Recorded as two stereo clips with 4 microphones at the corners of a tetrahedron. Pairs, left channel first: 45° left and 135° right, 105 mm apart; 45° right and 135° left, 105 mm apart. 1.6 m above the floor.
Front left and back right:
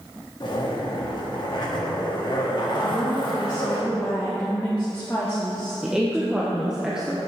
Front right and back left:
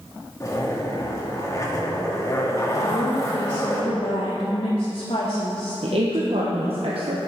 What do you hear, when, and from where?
0.4 s a zipper: 10° left, 1.6 m
2.8 s a woman speaking: 25° right, 1.5 m
5.8 s a woman speaking: 140° left, 1.0 m